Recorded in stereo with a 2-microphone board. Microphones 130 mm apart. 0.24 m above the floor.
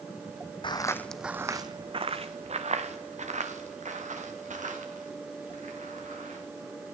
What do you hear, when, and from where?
0.6 s footsteps: 40° left (ahead or behind), 0.6 m; by 6.4 s 75° right (ahead or behind), 4 m